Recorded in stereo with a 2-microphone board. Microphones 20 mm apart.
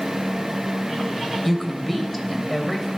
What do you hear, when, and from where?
1.4 s a woman speaking: 10° left (ahead or behind), 1.8 m